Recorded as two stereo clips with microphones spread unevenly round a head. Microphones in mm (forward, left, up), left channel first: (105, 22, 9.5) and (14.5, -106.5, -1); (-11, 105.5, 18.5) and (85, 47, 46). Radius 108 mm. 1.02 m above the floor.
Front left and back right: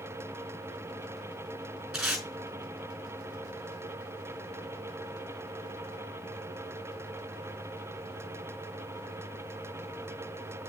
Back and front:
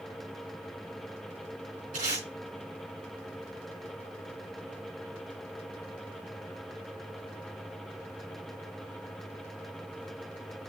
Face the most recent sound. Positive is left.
turn(degrees=-40)